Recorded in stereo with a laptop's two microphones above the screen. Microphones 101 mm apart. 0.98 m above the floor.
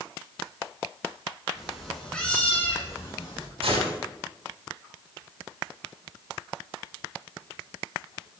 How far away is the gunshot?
About 4 m.